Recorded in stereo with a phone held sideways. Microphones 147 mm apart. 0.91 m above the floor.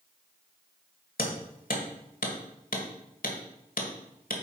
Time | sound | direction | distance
1.2 | hammering | 75° left (ahead or behind) | 1.5 m